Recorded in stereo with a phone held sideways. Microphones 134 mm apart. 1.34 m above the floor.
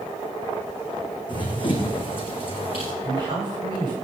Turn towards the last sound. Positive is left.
turn(degrees=-40)  # may be behind; listen again after turning